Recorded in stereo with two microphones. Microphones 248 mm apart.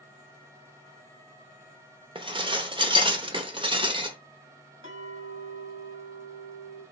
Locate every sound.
2.1 s dishes clattering: 20° right (ahead or behind), 0.8 m
4.8 s a clink: 50° left (ahead or behind), 2 m